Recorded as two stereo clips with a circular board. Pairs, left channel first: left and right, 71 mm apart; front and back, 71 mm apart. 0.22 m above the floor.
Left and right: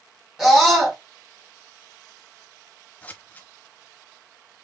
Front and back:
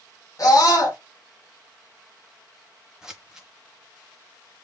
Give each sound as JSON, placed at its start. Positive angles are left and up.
{"t": 0.4, "sound": "a scream", "azimuth_deg": -10, "distance_m": 2.5}
{"t": 3.0, "sound": "scissors", "azimuth_deg": 110, "distance_m": 0.9}